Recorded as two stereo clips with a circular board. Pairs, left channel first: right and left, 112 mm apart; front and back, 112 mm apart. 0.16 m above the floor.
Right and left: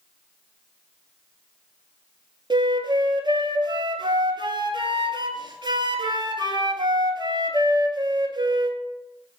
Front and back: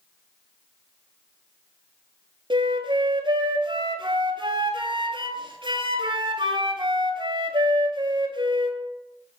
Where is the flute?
135° left, 0.7 m.